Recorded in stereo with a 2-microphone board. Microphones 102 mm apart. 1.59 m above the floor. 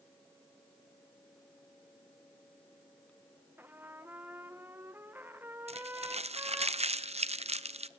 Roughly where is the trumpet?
Centre.